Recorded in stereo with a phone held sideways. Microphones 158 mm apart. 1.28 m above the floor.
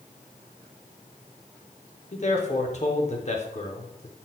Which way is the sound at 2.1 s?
50° left (ahead or behind).